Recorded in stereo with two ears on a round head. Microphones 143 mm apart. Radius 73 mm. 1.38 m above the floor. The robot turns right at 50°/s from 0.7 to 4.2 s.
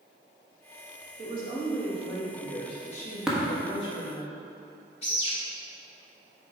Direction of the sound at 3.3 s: 5° right (ahead or behind).